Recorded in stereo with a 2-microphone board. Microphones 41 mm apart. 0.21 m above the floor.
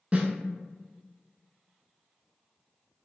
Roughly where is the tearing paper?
No tearing paper in this recording.